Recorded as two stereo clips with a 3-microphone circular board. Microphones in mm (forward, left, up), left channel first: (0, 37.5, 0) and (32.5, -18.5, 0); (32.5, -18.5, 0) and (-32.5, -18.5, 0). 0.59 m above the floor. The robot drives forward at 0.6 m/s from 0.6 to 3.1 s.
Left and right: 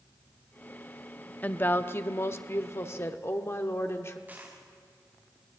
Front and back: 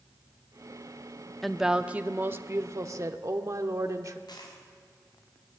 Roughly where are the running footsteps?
No running footsteps in this recording.